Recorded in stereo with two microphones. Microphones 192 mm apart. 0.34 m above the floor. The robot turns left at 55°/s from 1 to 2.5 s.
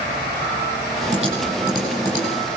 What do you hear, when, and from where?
1.1 s typing on a keyboard: 35° right (ahead or behind), 9.5 m; by 2.2 s 25° left (ahead or behind), 9.5 m